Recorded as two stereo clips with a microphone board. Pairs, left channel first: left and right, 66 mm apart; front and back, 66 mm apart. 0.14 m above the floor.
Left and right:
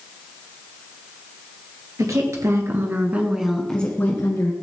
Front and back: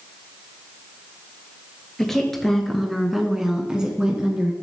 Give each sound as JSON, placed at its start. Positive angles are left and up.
{"t": 2.0, "sound": "a woman speaking", "azimuth_deg": -80, "distance_m": 2.5}